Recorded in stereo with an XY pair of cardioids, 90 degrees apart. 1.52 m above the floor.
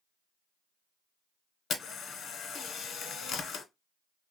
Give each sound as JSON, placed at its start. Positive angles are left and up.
{"t": 1.7, "sound": "a camera shutter", "azimuth_deg": 70, "distance_m": 1.1}